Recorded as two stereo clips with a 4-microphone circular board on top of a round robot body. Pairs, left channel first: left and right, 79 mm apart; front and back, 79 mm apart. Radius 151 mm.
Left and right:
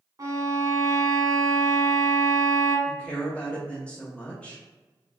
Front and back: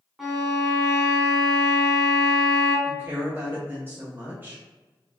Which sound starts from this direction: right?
A violin, at 0.2 s.